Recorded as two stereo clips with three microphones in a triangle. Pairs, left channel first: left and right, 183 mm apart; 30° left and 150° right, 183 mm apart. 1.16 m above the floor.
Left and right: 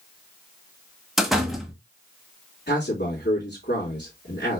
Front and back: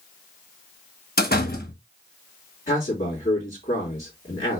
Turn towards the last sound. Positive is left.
turn(degrees=75)